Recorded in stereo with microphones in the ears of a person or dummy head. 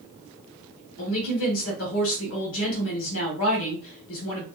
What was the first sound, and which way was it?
A woman speaking, 70° left (ahead or behind).